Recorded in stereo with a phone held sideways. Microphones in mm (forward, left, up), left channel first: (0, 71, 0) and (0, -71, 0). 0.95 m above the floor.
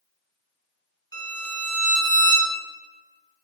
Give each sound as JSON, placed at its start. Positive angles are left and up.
{"t": 1.1, "sound": "a violin", "side_deg": 25, "distance_m": 1.1}